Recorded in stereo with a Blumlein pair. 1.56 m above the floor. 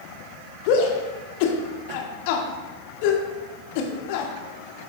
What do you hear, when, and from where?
0.7 s a shout: 45° left, 1.1 m